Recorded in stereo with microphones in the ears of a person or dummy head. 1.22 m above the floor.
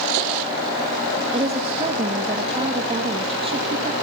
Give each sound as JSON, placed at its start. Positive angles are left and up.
{"t": 1.3, "sound": "a woman speaking", "side_deg": -30, "distance_m": 1.4}